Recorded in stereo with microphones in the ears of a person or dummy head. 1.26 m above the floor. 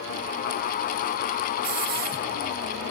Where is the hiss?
50° right (ahead or behind), 0.9 m.